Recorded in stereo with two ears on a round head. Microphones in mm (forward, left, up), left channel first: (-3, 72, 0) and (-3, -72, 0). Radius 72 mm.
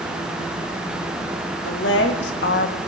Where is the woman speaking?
80° left, 2.5 m; by 2.8 s 70° left (ahead or behind), 1.2 m.